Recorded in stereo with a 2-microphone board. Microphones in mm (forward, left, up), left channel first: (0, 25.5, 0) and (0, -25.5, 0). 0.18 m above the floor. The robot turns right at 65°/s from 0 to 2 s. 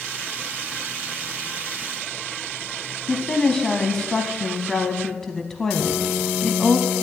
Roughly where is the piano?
Centre.